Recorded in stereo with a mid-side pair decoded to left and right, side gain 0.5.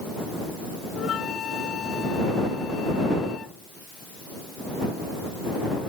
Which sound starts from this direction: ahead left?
A flute, at 0.9 s.